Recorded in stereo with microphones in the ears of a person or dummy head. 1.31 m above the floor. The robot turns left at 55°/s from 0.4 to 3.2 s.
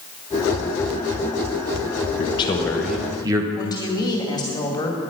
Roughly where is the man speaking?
Ahead left.